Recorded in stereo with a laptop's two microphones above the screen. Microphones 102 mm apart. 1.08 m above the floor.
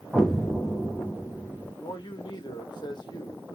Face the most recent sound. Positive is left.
turn(degrees=50)  # may be behind; listen again after turning